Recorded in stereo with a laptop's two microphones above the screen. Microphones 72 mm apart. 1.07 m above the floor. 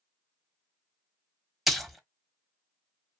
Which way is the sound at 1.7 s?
Centre (ahead or behind).